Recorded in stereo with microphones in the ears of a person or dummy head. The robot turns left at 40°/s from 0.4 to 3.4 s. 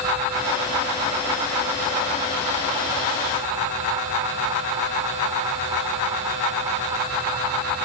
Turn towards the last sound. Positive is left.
No sound to turn to.